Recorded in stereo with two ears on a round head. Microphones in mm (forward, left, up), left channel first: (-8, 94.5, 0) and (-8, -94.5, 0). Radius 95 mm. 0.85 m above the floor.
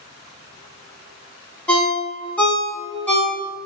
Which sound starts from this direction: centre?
A ringtone, at 1.7 s.